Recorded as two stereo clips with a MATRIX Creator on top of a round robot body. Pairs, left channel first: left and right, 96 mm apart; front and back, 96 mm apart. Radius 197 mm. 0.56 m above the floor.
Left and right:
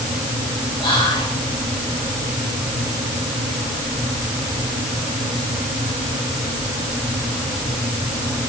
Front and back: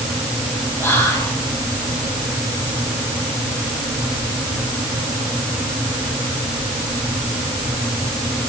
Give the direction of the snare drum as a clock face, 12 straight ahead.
No snare drum in this recording.